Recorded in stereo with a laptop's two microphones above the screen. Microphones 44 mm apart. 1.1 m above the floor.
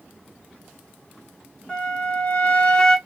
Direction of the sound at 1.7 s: 25° left (ahead or behind).